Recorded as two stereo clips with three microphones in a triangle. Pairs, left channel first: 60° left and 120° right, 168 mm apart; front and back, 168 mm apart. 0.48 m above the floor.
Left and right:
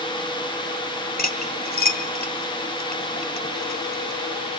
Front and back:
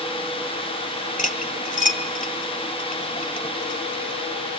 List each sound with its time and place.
1.2 s cutlery clinking: 35° left, 1.5 m